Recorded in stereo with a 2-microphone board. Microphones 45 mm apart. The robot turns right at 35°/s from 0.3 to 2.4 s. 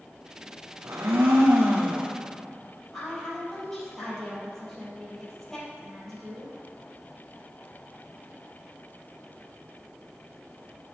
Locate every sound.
0.8 s a blender: 80° right, 1.7 m; by 2.1 s 35° right, 1.7 m
2.9 s a woman speaking: 10° left (ahead or behind), 3 m